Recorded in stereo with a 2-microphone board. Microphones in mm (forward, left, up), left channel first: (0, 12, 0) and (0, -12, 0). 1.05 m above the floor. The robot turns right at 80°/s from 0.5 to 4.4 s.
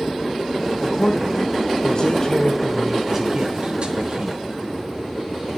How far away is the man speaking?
About 0.8 m.